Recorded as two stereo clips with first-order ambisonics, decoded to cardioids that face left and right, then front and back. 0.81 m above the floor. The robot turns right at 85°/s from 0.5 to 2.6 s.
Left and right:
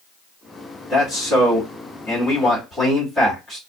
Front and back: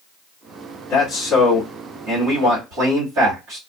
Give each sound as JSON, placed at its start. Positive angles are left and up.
{"t": 0.9, "sound": "a man speaking", "azimuth_deg": 45, "distance_m": 1.7}